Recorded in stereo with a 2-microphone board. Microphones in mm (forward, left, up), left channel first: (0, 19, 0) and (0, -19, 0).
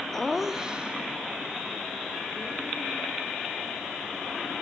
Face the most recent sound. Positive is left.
turn(degrees=-35)  # may be behind; listen again after turning